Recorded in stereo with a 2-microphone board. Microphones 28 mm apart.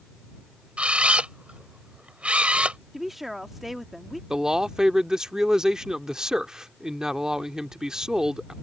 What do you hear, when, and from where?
0.8 s a camera shutter: 50° right (ahead or behind)
2.9 s a woman speaking: 10° right (ahead or behind)
4.3 s a man speaking: 25° right (ahead or behind)